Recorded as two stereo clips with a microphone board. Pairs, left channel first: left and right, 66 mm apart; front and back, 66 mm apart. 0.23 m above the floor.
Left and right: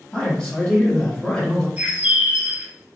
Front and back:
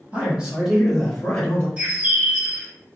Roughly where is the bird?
Behind right.